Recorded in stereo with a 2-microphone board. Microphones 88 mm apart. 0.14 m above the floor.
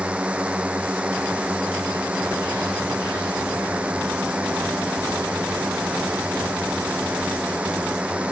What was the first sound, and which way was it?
A drone, 15° right (ahead or behind).